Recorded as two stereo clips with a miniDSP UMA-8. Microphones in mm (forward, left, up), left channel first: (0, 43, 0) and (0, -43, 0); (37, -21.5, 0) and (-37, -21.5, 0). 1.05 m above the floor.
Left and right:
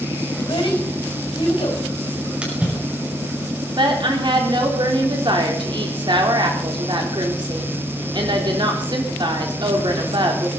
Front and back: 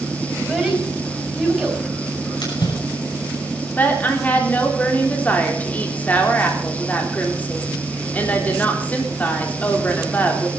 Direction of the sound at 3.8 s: 65° right.